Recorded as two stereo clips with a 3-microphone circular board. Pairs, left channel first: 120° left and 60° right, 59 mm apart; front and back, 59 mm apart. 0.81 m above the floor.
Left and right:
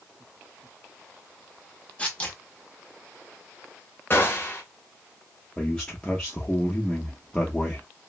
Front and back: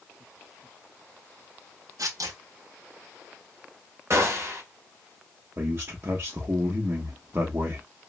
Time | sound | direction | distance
2.0 | tearing paper | 170° right | 0.8 m
4.1 | a gunshot | 160° left | 0.9 m
5.6 | a man speaking | 170° right | 0.8 m